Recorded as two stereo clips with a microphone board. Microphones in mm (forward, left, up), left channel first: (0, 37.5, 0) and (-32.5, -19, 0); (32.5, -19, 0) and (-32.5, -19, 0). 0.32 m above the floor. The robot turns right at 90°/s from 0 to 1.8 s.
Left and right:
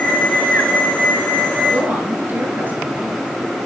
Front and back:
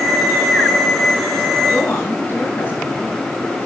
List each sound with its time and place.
1.7 s a woman speaking: 65° right, 4.5 m; by 3.2 s 60° right, 4.5 m